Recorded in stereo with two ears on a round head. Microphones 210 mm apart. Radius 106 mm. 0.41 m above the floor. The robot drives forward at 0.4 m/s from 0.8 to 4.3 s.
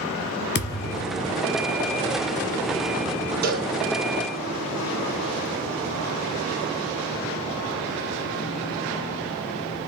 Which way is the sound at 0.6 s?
45° left (ahead or behind).